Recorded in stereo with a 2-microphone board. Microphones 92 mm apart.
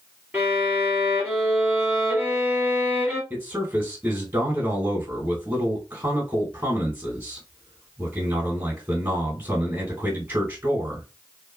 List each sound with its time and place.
0.3 s a violin: 20° right (ahead or behind), 2.5 m
3.3 s a man speaking: 25° right (ahead or behind), 2 m